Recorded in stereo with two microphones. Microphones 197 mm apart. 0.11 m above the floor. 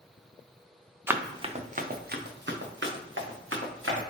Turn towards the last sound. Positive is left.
turn(degrees=-85)